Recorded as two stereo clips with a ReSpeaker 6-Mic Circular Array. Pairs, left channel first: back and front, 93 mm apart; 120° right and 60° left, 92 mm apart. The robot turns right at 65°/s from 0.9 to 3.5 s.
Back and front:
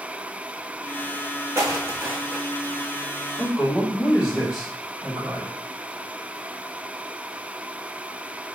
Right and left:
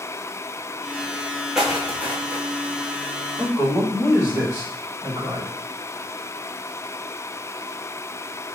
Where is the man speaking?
120° left, 1.5 m; by 5.5 s 130° left, 1.5 m.